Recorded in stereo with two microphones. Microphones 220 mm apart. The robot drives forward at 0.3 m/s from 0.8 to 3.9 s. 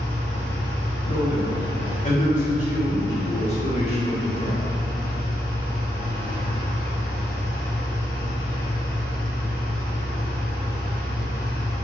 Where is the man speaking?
35° left (ahead or behind), 1.1 m; by 4.6 s 30° left (ahead or behind), 1.2 m.